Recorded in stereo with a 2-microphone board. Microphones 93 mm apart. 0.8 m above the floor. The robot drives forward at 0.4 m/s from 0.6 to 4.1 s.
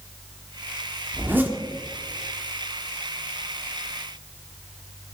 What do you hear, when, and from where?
1.1 s a zipper: 20° right (ahead or behind), 1.3 m